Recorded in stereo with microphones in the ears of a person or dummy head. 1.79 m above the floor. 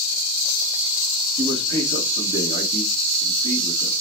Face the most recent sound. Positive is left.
turn(degrees=-35)  # may be behind; listen again after turning